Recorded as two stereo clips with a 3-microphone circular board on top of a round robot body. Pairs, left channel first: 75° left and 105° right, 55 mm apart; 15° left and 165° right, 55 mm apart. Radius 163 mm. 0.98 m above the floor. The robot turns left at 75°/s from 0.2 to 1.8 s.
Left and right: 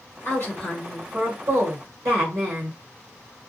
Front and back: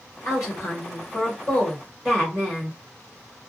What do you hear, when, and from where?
0.2 s a woman speaking: 40° left, 1.2 m; by 2.8 s 75° right, 1.2 m